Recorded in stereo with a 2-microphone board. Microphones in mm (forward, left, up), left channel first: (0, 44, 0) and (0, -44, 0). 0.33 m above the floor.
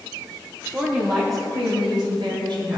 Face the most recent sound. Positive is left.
turn(degrees=-60)  # may be behind; listen again after turning